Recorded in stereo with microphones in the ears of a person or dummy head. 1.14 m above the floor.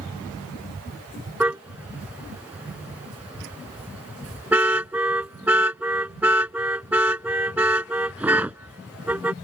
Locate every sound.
1.4 s a car horn: 10° right (ahead or behind)